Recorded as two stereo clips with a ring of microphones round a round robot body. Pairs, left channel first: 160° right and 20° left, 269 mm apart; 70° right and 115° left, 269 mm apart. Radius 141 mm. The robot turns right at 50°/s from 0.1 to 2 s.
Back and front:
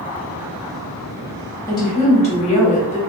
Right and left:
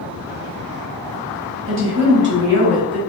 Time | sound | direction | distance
1.7 | a woman speaking | 125° left | 1.2 m